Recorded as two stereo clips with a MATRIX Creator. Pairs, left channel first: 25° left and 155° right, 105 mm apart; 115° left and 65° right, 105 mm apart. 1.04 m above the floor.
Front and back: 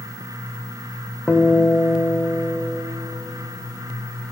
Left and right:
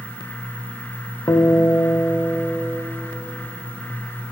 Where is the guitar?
90° left, 0.9 m.